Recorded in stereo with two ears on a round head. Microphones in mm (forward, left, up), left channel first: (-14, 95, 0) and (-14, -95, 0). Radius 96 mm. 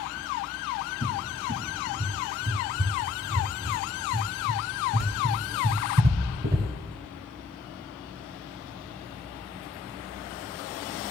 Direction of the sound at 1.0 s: 45° right (ahead or behind).